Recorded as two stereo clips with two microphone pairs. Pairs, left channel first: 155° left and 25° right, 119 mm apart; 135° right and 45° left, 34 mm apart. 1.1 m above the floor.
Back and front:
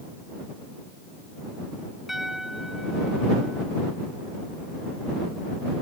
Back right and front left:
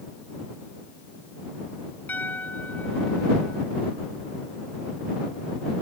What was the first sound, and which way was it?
A piano, 110° right.